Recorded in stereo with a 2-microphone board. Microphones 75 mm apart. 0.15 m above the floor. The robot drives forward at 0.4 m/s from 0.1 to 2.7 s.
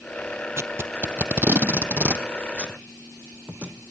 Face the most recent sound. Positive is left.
turn(degrees=-15)  # may be behind; listen again after turning